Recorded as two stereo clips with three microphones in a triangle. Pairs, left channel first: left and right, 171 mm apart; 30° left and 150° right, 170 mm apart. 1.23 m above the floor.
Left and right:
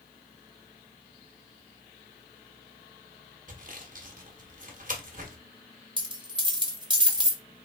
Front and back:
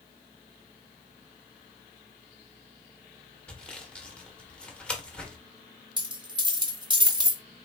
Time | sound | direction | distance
3.5 | sawing | 55° right | 0.9 m
6.0 | a dropped coin | 120° right | 0.8 m